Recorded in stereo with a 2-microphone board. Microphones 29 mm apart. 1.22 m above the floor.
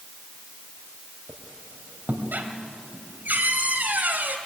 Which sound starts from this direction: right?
A squeak, at 1.3 s.